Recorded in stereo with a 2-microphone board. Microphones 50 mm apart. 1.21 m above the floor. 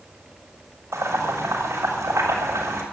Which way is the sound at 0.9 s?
80° right.